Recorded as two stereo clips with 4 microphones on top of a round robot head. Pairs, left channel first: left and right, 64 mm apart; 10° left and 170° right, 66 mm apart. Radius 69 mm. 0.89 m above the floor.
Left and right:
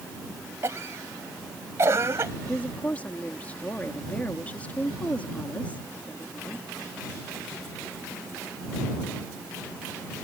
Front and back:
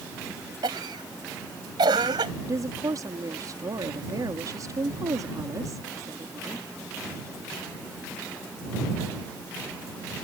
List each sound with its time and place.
0.6 s a cough: 145° right
2.4 s a woman speaking: 160° left